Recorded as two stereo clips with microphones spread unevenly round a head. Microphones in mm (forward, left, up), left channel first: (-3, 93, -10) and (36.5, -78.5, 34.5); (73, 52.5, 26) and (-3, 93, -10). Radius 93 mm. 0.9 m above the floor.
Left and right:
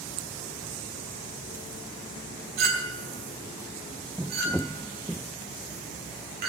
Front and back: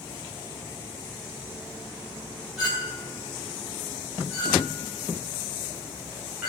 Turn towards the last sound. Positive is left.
turn(degrees=-120)